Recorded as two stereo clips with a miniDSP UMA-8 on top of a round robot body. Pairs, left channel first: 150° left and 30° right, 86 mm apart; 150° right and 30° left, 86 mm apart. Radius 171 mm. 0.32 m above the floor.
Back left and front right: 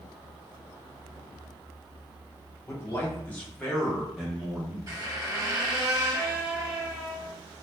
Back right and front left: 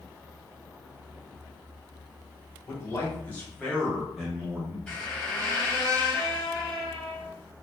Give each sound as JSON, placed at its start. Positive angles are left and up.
{"t": 2.7, "sound": "a man speaking", "azimuth_deg": -175, "distance_m": 1.7}
{"t": 4.9, "sound": "a squeak", "azimuth_deg": -70, "distance_m": 1.1}